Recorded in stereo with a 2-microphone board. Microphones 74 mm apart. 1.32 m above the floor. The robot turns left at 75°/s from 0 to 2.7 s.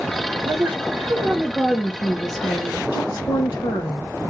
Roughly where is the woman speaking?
Right.